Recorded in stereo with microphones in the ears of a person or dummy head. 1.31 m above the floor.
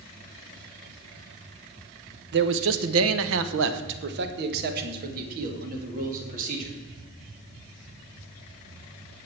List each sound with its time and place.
2.3 s a man speaking: 55° right (ahead or behind), 0.8 m; by 6.8 s 45° right (ahead or behind), 3 m